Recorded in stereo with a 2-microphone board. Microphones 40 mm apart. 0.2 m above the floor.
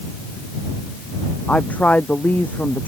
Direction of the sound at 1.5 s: 35° left (ahead or behind).